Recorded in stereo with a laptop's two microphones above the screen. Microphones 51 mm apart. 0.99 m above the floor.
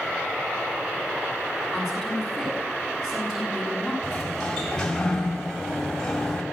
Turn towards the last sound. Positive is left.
turn(degrees=10)  # may be behind; listen again after turning